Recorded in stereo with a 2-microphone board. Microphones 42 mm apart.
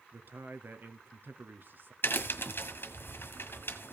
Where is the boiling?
No boiling in this recording.